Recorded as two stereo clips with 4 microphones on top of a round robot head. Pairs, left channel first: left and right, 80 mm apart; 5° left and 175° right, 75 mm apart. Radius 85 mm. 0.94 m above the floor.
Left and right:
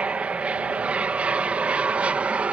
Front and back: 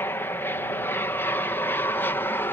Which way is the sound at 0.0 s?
30° right.